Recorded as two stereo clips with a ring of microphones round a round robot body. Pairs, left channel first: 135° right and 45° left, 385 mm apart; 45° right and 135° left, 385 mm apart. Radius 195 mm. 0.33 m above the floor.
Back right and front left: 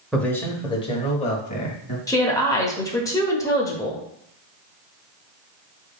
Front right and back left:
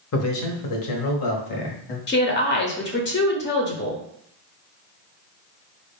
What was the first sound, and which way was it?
A man speaking, 45° right.